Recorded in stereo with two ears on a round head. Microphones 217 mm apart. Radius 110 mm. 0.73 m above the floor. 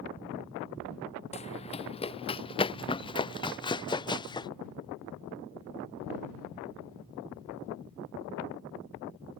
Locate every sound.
1.3 s running footsteps: 30° left (ahead or behind); by 4.5 s 20° left (ahead or behind)